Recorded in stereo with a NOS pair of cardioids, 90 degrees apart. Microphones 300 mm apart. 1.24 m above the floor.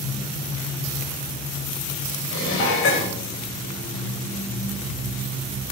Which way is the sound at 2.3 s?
45° left.